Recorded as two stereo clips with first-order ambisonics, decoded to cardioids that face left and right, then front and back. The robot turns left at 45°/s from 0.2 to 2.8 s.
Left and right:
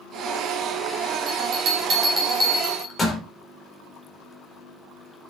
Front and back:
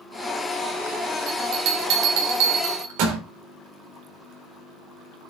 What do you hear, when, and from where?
1.3 s a bell: 125° right, 4 m; by 3.2 s 165° left, 4 m